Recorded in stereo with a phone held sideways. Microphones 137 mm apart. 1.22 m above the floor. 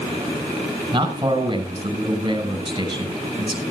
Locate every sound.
0.9 s a man speaking: 35° right (ahead or behind), 6 m